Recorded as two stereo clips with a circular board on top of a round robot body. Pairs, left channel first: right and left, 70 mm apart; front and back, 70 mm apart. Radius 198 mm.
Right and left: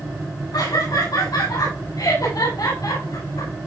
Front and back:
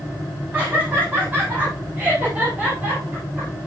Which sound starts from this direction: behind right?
Laughter, at 0.5 s.